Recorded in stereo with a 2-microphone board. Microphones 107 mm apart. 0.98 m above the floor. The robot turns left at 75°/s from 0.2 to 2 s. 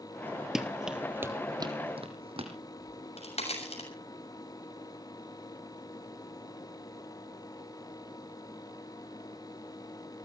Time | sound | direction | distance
0.6 | running footsteps | 5° right (ahead or behind) | 1.1 m
2.8 | a crack | 75° left (ahead or behind) | 6.5 m